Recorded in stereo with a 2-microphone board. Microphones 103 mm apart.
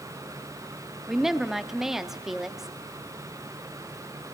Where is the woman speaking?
5° right (ahead or behind), 0.8 m.